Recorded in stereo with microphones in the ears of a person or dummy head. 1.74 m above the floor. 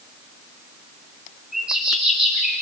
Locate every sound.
1.5 s a bird: 5° right (ahead or behind), 4.5 m